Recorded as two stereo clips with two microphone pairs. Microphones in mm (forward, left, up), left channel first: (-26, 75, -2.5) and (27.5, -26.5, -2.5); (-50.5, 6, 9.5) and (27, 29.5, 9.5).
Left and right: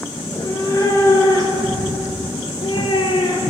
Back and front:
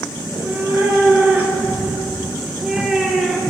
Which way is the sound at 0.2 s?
60° left.